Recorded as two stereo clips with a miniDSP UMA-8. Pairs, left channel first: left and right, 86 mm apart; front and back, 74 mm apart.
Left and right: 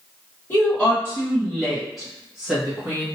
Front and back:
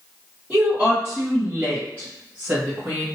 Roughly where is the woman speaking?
Behind left.